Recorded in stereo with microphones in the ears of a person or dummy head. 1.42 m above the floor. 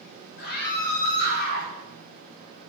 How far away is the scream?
About 3.5 m.